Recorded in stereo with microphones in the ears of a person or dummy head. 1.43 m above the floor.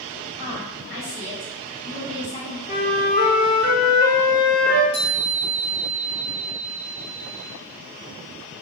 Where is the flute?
45° left (ahead or behind), 1.0 m.